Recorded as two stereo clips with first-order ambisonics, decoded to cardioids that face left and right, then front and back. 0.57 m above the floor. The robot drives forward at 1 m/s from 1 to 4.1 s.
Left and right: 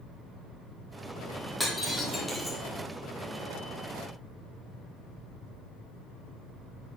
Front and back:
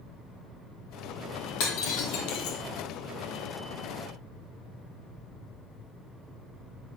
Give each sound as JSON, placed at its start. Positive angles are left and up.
{"t": 1.6, "sound": "breaking glass", "azimuth_deg": 5, "distance_m": 3.0}